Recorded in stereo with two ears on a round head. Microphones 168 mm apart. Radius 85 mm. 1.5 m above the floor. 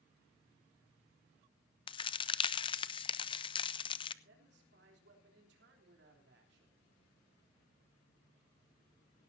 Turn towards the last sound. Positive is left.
turn(degrees=-60)  # may be behind; listen again after turning